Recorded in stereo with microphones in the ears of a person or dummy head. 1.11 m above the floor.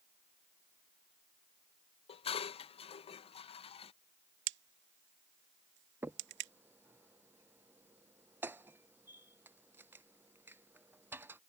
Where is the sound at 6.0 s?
15° right (ahead or behind).